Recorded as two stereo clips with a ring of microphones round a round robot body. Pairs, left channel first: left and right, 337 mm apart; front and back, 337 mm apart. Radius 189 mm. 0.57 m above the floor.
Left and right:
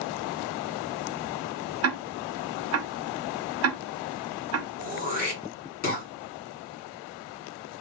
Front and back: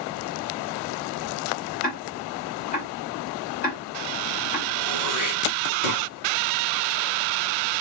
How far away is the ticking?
About 0.7 m.